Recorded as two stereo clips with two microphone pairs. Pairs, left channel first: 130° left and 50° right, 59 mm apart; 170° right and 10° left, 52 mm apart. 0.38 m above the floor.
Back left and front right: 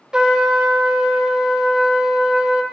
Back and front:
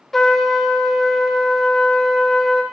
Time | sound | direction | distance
0.1 | a trumpet | 90° right | 0.5 m